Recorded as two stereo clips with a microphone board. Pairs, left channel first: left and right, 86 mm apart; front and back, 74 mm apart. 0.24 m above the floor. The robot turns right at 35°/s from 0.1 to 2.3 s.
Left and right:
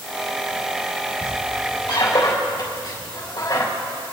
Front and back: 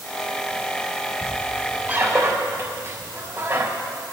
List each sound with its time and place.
1.2 s a squeak: 90° left, 3.5 m; by 3.7 s 130° left, 3.5 m